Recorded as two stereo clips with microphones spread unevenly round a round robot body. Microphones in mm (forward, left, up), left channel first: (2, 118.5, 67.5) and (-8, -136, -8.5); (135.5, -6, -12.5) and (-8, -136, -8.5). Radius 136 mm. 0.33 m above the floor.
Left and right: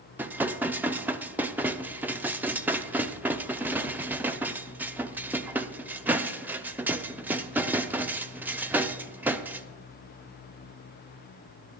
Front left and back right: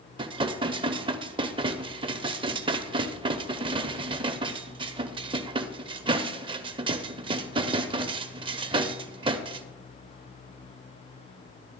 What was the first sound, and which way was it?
Dishes clattering, 115° right.